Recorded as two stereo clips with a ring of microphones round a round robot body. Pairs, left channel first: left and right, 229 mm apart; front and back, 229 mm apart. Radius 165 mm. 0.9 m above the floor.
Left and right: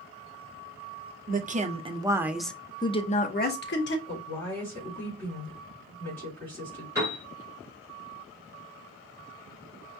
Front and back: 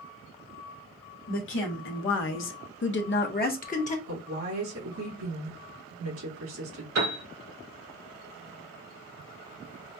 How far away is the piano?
About 3 m.